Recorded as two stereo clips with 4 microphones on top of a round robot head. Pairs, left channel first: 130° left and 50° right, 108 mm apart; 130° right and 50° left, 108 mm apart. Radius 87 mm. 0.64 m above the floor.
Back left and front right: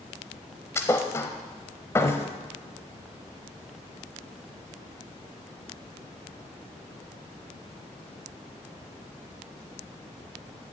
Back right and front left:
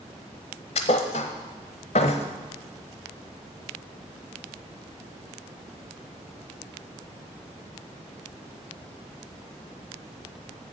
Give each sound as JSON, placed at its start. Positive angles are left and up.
{"t": 0.8, "sound": "a thud", "azimuth_deg": -160, "distance_m": 0.6}